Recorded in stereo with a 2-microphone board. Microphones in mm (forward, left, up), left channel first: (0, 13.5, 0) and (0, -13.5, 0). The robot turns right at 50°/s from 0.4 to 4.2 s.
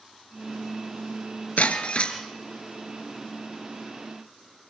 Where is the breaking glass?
115° left, 3 m; by 2.2 s 145° left, 3 m.